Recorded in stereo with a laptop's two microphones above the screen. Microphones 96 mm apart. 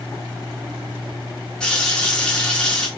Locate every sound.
1.6 s a running tap: 10° left (ahead or behind), 0.8 m